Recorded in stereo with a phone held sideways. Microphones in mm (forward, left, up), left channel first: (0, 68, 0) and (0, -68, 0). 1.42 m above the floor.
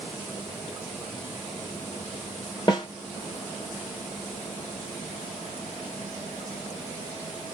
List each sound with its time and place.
2.7 s a snare drum: 30° left (ahead or behind), 1.2 m